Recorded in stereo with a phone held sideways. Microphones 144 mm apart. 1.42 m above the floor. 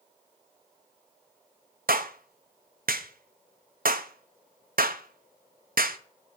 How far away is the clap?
About 0.6 m.